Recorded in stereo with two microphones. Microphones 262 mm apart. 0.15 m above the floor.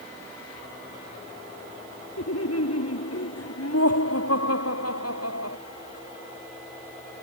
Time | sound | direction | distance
2.2 | laughter | 65° left (ahead or behind) | ?